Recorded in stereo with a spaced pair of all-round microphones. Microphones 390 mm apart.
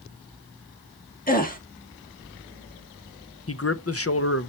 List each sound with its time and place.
1.3 s a gasp: 20° left (ahead or behind), 1.4 m
3.5 s a man speaking: 35° left (ahead or behind), 0.6 m